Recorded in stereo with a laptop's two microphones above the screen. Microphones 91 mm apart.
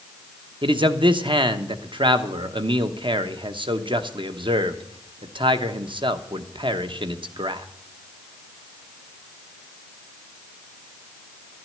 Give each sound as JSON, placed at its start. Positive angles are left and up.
{"t": 0.6, "sound": "a man speaking", "side_deg": -65, "distance_m": 1.0}